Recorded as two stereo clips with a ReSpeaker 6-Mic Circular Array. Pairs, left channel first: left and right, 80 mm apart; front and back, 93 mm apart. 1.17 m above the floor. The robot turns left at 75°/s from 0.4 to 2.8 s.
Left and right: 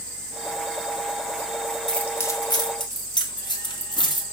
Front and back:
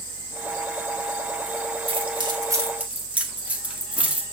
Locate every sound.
1.9 s keys jangling: 175° left, 1.8 m; by 4.2 s 105° left, 1.8 m